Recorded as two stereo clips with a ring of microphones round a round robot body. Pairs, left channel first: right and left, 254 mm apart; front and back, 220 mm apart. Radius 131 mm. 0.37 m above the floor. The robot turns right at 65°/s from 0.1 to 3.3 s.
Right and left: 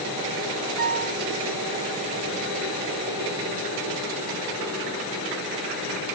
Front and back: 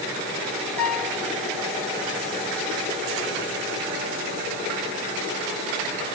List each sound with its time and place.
0.8 s a piano: 85° left, 2.5 m; by 1.2 s 110° left, 2.5 m